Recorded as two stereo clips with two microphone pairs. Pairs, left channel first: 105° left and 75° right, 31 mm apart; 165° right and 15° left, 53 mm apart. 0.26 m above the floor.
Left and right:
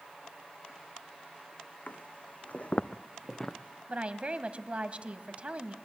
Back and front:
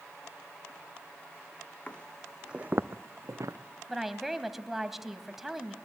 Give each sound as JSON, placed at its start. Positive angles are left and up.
{"t": 1.9, "sound": "footsteps", "azimuth_deg": 130, "distance_m": 0.8}
{"t": 3.9, "sound": "a woman speaking", "azimuth_deg": -65, "distance_m": 1.2}